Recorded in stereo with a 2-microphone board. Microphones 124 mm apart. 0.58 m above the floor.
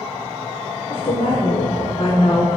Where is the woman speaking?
65° left (ahead or behind), 2 m; by 2.6 s 40° left (ahead or behind), 1.4 m.